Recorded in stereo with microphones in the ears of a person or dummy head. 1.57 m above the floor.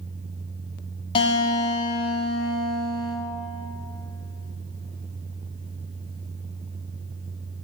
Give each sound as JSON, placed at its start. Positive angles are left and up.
{"t": 1.1, "sound": "a guitar", "side_deg": 30, "distance_m": 1.0}